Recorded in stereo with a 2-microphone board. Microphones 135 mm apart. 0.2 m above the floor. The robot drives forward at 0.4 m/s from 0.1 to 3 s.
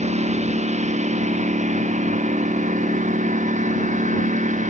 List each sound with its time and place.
0.0 s a lawn mower: 60° right (ahead or behind); by 4.7 s 70° right (ahead or behind)